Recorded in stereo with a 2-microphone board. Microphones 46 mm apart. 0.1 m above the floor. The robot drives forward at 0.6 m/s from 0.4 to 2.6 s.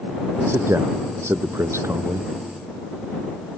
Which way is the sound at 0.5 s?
60° right (ahead or behind).